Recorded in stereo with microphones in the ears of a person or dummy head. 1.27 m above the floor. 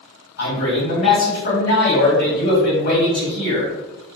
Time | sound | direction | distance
0.4 | a man speaking | 60° left (ahead or behind) | 1.4 m